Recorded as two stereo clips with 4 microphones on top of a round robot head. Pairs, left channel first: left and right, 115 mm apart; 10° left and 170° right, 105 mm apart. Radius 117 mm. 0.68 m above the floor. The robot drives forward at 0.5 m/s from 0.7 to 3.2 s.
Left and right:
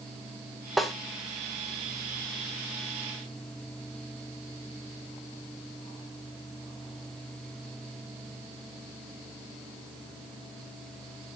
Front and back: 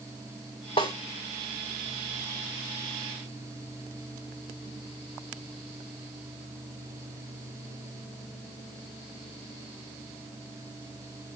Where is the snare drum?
Straight ahead, 0.5 m.